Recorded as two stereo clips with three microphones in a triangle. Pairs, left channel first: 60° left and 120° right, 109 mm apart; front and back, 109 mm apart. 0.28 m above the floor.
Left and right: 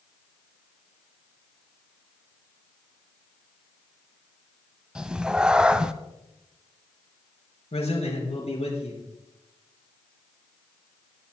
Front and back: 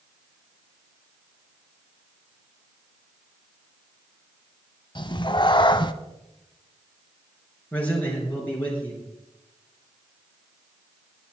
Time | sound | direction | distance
5.0 | a cat meowing | 40° right | 0.6 m
7.7 | a man speaking | 75° left | 3.5 m